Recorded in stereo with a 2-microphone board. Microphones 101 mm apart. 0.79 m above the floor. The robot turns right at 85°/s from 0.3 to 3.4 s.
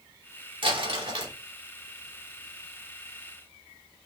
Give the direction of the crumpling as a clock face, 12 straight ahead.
4 o'clock.